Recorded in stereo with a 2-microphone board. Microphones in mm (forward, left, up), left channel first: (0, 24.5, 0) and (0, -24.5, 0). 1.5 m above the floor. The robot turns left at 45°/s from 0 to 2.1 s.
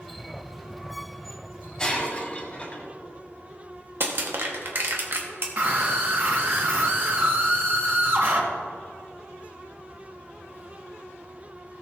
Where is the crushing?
50° right (ahead or behind), 1.4 m.